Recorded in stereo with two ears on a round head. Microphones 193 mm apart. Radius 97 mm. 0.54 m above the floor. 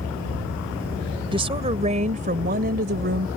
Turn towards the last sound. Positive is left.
turn(degrees=-55)  # may be behind; listen again after turning